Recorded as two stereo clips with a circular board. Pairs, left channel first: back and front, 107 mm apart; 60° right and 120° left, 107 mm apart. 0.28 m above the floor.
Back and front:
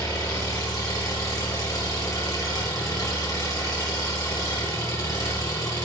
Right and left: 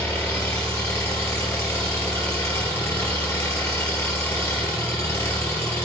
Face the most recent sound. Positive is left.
turn(degrees=-125)